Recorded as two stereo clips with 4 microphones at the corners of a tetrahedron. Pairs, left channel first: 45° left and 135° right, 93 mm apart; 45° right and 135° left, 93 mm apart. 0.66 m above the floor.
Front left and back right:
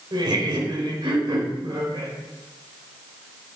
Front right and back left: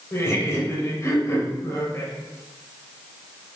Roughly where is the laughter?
Right.